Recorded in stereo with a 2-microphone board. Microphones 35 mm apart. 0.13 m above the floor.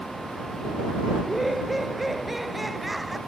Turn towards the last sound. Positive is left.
turn(degrees=0)  # may be behind; listen again after turning